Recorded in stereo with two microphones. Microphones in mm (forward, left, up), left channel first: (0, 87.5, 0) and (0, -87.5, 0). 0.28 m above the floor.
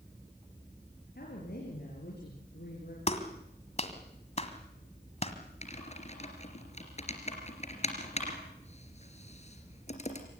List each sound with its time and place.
1.1 s a woman speaking: 65° left (ahead or behind), 5 m; by 3.0 s 80° left, 6.5 m
3.1 s a clap: 40° left (ahead or behind), 1.8 m
5.6 s typing on a keyboard: 40° left (ahead or behind), 3 m